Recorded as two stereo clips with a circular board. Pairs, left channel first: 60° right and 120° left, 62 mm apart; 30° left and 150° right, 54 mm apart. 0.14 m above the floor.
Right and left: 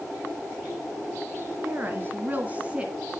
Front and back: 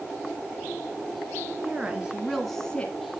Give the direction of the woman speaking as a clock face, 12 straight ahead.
7 o'clock.